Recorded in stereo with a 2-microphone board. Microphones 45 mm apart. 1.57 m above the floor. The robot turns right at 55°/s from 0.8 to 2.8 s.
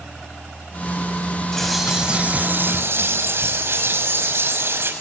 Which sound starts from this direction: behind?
A bird, at 1.5 s.